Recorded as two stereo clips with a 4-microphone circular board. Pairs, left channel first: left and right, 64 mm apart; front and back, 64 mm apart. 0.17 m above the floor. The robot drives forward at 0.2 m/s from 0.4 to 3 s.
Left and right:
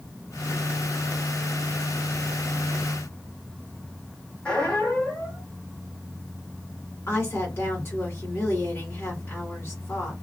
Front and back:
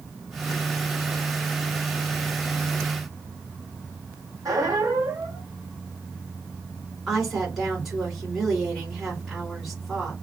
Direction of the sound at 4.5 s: 165° left.